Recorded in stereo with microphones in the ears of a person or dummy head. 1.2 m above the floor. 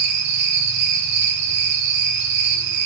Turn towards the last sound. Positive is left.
turn(degrees=-55)  # may be behind; listen again after turning